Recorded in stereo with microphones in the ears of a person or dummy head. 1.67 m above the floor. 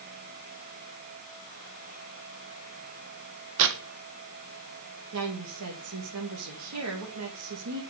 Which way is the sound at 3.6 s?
70° right (ahead or behind).